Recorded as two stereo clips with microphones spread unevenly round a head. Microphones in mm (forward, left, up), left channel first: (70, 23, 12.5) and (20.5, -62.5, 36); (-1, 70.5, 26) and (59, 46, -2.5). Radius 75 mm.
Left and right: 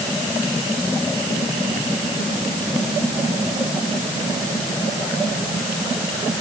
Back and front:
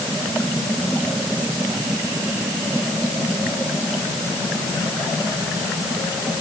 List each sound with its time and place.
Only background noise.